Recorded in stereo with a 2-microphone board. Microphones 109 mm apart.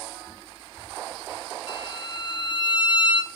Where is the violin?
45° left (ahead or behind), 1.2 m.